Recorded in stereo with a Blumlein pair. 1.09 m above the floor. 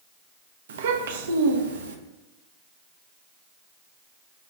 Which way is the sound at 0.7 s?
60° right.